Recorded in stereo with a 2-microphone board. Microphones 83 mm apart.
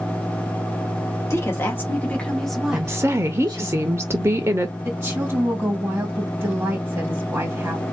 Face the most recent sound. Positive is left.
turn(degrees=-25)  # may be behind; listen again after turning